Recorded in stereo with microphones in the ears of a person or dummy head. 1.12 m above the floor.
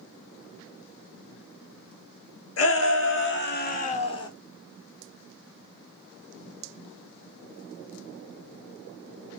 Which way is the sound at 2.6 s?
65° left (ahead or behind).